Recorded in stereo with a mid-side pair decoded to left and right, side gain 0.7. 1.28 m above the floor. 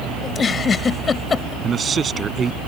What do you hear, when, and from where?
0.2 s a giggle: 25° left
1.6 s a man speaking: 30° right